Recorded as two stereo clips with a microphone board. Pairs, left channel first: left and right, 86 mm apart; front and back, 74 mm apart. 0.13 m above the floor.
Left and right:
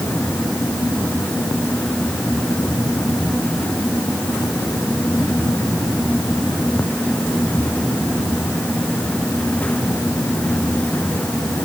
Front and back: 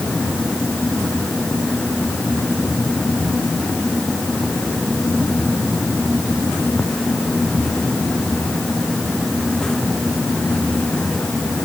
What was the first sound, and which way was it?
Only background noise.